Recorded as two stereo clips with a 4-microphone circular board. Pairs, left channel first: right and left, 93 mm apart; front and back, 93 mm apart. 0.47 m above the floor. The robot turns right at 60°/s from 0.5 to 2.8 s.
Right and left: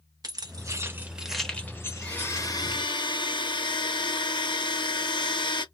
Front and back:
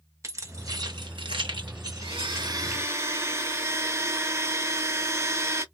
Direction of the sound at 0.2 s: 130° left.